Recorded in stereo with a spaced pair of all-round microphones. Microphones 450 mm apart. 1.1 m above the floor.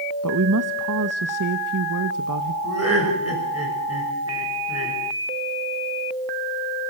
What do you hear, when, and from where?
0.2 s a woman speaking: 45° right (ahead or behind), 1.0 m
2.6 s laughter: 30° right (ahead or behind), 6 m